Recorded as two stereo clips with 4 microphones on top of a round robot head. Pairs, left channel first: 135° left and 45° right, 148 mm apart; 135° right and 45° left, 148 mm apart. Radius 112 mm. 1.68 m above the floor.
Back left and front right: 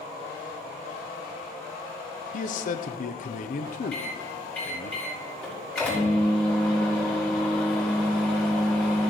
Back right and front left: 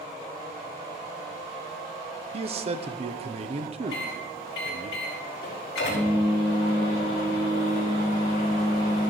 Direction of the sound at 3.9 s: 145° right.